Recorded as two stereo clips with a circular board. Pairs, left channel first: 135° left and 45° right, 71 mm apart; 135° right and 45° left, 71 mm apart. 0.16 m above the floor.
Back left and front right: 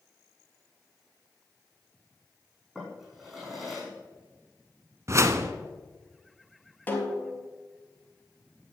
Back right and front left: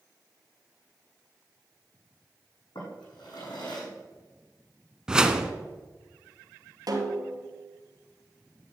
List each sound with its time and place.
2.8 s a drawer: 135° right, 6 m
5.1 s a whoosh: 30° right, 1.0 m
6.9 s a snare drum: 70° left, 2 m